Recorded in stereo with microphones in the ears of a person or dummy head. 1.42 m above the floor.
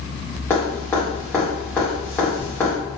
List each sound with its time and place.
0.5 s dripping: 5° left (ahead or behind), 1.9 m